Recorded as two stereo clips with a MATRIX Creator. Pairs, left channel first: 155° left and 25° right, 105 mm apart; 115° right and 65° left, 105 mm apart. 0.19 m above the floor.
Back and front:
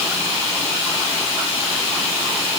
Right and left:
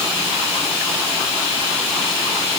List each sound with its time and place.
Only background noise.